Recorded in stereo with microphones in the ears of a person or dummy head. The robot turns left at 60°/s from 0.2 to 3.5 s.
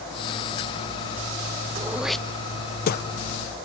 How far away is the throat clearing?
About 0.5 m.